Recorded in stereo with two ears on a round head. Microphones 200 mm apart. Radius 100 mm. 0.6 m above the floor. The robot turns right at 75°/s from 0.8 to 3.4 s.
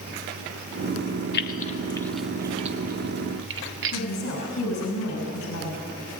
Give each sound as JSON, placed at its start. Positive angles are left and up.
{"t": 1.3, "sound": "keys jangling", "side_deg": 50, "distance_m": 1.0}
{"t": 3.9, "sound": "a woman speaking", "side_deg": 60, "distance_m": 5.5}